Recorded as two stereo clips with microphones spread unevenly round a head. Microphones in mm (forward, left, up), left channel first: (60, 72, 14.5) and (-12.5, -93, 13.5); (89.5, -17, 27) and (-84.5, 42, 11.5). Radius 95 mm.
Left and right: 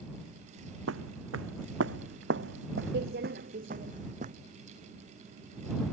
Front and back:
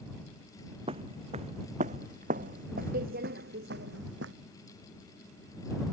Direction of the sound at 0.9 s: 135° right.